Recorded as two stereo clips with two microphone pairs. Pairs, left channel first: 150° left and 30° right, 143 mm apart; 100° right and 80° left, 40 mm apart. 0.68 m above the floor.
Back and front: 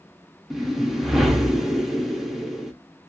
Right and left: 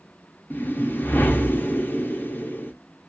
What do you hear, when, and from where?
0.5 s a whoosh: 125° right, 0.6 m